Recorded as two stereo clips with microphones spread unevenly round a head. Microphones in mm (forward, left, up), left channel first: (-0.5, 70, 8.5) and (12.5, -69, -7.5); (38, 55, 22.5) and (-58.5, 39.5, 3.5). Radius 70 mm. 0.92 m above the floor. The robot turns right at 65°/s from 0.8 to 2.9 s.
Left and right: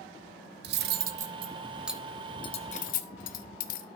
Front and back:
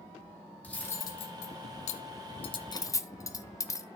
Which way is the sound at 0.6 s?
70° right.